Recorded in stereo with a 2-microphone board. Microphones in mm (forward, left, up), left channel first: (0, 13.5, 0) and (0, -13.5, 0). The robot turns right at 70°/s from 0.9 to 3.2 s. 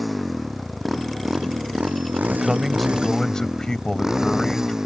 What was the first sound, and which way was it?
A motorcycle, straight behind.